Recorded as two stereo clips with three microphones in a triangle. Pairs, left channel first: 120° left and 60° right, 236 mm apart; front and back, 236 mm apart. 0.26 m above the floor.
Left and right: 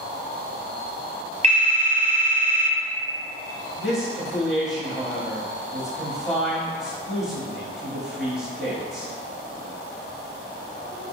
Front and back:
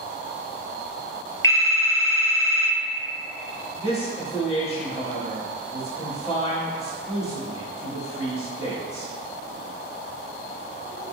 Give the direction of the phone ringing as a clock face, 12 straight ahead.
2 o'clock.